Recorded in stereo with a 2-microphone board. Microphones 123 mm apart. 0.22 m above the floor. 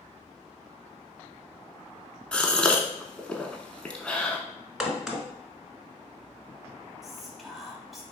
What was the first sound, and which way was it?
A gasp, 10° left (ahead or behind).